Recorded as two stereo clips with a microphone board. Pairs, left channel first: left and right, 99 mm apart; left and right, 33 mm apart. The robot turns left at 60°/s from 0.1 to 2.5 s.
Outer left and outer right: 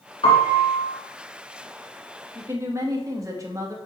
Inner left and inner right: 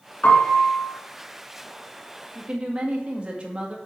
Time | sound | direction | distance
0.2 | a piano | 75° left | 2.5 m
2.4 | a woman speaking | 25° right (ahead or behind) | 1.5 m